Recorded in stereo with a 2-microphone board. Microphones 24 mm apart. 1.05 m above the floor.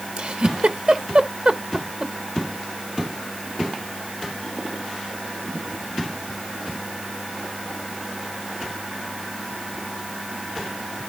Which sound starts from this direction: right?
A giggle, at 0.2 s.